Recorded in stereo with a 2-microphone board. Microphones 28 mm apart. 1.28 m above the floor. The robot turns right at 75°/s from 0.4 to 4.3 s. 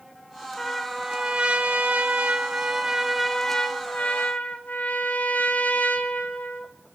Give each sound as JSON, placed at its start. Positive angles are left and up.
{"t": 0.6, "sound": "a trumpet", "azimuth_deg": 160, "distance_m": 0.9}